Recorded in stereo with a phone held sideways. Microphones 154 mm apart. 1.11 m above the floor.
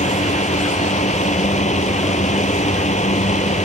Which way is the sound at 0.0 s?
50° left (ahead or behind).